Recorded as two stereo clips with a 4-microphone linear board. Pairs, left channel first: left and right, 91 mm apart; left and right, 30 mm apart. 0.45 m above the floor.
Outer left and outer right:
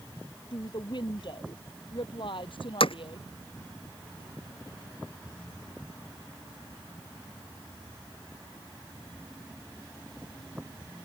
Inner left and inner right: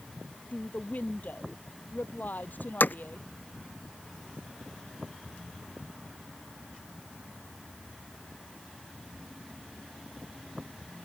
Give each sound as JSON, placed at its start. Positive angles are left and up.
{"t": 0.5, "sound": "a woman speaking", "side_deg": 55}
{"t": 2.8, "sound": "hammering", "side_deg": 75}